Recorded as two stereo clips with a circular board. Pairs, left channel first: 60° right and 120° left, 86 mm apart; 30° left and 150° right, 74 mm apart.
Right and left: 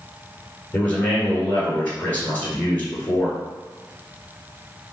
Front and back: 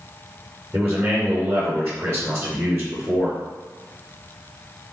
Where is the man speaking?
110° right, 1.6 m.